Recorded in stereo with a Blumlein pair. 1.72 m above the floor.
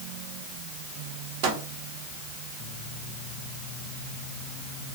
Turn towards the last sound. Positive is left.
turn(degrees=-45)